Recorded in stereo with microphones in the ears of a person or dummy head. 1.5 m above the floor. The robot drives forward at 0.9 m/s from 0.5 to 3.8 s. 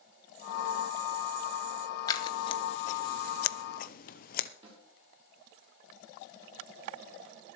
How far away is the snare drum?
About 9 m.